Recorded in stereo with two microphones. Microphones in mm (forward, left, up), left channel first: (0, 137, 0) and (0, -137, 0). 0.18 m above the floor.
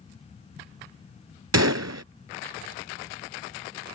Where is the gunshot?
70° right (ahead or behind).